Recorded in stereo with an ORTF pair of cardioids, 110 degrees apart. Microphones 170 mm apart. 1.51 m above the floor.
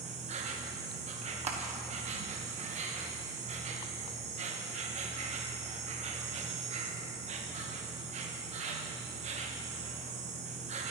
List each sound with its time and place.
0.0 s an insect: 45° right, 1.1 m
1.5 s crushing: 45° right, 1.2 m